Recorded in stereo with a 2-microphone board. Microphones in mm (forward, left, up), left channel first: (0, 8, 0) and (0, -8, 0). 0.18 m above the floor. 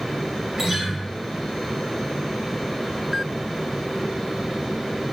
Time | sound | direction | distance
0.6 | a guitar | 30° right (ahead or behind) | 1.2 m